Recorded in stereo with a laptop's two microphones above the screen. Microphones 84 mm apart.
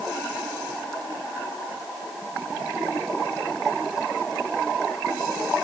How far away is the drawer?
No drawer in this recording.